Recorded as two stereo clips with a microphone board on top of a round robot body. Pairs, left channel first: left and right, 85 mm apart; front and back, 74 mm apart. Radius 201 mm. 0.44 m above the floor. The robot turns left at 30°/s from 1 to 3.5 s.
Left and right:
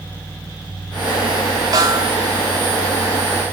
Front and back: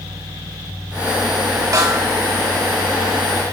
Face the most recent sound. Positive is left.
turn(degrees=170)